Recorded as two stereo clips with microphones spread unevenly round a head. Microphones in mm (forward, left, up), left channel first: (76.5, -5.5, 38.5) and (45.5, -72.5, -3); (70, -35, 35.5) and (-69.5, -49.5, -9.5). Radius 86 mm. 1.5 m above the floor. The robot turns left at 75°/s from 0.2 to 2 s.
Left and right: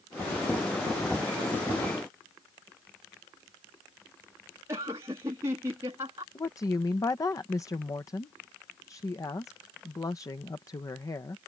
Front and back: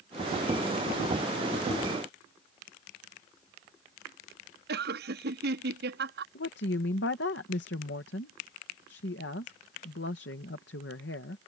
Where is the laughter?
Straight behind.